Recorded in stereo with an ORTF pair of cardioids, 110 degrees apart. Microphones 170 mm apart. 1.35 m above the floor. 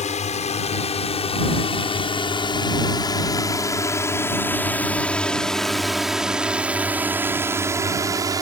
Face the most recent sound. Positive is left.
turn(degrees=-20)